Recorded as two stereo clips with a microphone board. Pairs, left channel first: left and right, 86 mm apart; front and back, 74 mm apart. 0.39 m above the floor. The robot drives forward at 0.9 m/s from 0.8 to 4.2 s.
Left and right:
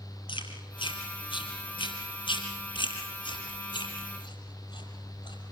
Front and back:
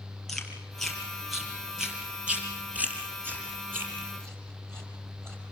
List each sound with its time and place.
0.3 s chewing: 85° left, 4 m; by 5.4 s 125° left, 5 m